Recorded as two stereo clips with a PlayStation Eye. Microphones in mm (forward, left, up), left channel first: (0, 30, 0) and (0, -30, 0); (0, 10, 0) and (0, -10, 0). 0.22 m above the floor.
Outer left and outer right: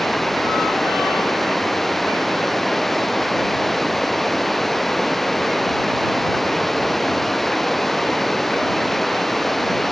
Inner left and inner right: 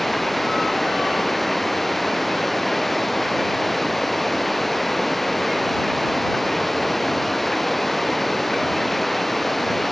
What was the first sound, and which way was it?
Running water, 5° left (ahead or behind).